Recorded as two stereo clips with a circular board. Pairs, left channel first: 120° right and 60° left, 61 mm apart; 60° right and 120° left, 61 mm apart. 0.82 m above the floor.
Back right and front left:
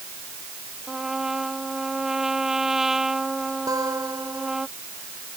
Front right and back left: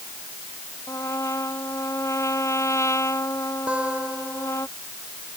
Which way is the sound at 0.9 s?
25° right.